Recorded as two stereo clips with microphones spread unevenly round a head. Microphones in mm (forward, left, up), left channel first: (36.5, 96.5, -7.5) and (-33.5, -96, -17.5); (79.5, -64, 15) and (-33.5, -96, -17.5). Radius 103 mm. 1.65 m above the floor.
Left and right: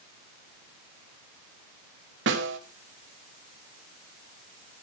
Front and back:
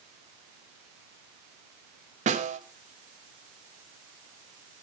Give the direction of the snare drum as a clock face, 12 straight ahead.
5 o'clock.